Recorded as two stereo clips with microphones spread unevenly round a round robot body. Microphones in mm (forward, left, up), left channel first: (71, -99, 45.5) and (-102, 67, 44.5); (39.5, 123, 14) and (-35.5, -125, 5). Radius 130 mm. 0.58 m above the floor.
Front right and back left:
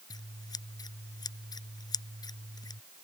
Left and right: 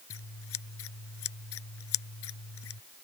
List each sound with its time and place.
0.1 s scissors: 30° left